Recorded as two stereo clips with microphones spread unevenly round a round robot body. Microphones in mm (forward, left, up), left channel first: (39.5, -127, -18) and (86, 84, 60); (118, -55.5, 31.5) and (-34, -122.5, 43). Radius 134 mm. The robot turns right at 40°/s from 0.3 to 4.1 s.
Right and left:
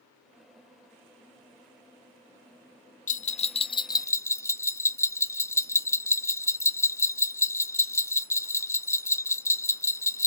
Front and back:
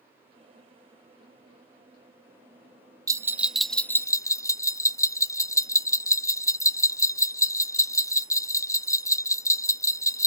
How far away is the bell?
About 0.6 m.